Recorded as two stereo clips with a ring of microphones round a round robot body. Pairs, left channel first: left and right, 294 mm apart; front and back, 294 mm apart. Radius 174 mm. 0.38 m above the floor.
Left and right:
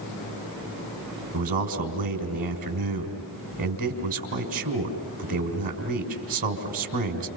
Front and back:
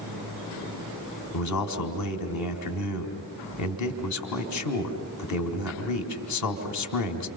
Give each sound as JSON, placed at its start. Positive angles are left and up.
{"t": 1.3, "sound": "a man speaking", "azimuth_deg": -25, "distance_m": 4.0}